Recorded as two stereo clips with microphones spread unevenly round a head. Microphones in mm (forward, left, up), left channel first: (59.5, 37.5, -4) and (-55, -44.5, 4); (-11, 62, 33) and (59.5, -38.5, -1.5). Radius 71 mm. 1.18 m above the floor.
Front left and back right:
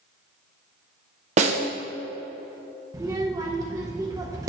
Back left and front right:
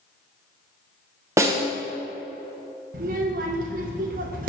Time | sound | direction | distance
1.4 | a snare drum | 110° right | 0.9 m
2.9 | a child speaking | 75° right | 0.6 m